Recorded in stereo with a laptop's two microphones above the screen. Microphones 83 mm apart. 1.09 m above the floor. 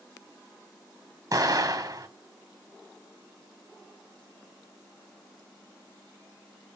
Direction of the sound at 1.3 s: 45° right (ahead or behind).